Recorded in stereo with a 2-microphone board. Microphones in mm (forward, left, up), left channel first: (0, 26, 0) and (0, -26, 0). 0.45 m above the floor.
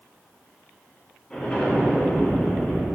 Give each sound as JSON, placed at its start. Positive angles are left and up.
{"t": 1.3, "sound": "an explosion", "side_deg": 20, "distance_m": 3.0}